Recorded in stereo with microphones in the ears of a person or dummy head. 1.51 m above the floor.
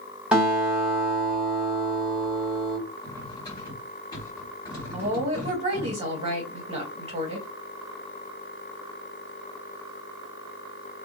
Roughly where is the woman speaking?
Right.